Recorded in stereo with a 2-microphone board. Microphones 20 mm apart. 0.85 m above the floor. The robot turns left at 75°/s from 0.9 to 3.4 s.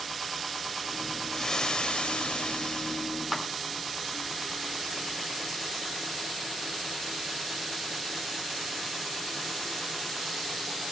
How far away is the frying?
About 1.7 m.